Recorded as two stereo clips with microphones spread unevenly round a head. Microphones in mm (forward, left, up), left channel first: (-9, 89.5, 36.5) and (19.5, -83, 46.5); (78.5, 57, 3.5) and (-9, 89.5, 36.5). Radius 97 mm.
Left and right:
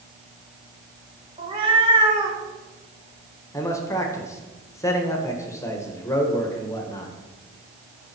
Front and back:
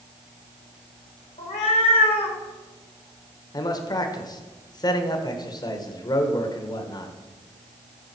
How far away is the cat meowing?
About 1.6 m.